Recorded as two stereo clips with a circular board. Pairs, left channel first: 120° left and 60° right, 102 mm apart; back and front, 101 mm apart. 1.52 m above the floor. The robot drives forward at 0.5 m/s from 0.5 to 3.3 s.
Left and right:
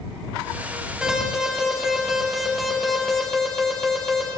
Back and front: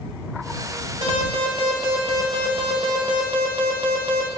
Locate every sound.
1.0 s an alarm: 20° left, 3 m; by 4.3 s 35° left, 2.0 m